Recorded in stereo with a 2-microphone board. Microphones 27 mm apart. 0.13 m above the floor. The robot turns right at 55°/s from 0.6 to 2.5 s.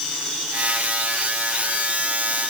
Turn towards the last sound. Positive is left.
No sound to turn to.